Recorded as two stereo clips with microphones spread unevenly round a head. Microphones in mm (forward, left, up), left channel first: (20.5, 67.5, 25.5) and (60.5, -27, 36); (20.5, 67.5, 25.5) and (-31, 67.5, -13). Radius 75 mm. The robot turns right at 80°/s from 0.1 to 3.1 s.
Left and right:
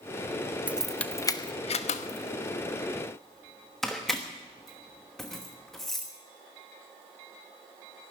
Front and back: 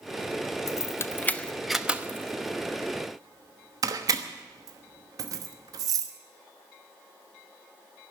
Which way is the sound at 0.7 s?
5° left.